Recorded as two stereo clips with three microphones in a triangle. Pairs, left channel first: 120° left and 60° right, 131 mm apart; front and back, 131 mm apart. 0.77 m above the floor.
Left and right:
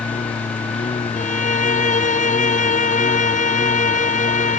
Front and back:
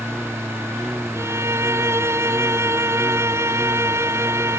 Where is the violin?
110° left.